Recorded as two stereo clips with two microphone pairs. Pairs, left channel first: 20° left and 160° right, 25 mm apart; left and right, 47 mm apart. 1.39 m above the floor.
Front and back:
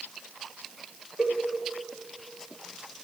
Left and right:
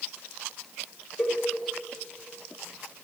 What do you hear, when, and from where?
1.2 s a cowbell: straight behind, 3 m